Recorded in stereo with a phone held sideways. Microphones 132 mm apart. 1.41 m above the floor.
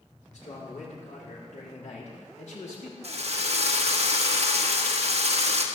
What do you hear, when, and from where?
0.3 s a man speaking: 70° left (ahead or behind), 5 m; by 2.9 s 65° left (ahead or behind), 3.5 m
3.0 s a drill: 55° right (ahead or behind), 1.3 m